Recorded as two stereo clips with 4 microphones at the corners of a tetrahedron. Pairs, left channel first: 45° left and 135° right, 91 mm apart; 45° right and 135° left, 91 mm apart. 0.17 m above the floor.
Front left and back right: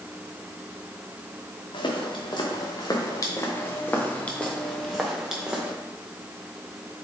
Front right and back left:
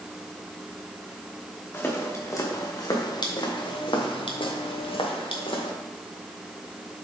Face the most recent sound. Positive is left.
turn(degrees=-55)